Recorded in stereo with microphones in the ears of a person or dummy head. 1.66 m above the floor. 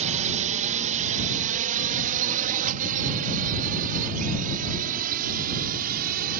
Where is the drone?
35° right (ahead or behind); by 6.4 s 45° right (ahead or behind).